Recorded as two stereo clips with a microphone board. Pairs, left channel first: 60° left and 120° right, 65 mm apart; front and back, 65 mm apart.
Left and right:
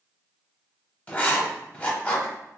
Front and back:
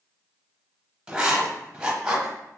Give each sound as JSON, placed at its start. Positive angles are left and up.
{"t": 1.1, "sound": "writing", "azimuth_deg": 110, "distance_m": 0.7}